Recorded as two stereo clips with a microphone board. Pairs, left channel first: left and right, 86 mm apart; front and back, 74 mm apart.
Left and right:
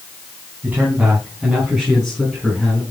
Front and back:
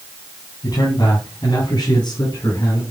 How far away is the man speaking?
About 3.5 m.